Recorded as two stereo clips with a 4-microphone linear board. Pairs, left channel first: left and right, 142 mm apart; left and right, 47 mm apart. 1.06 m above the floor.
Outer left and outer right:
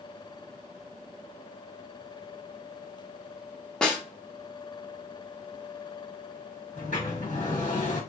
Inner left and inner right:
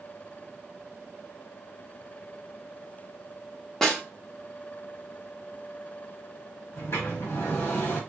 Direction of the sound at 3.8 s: 5° left (ahead or behind).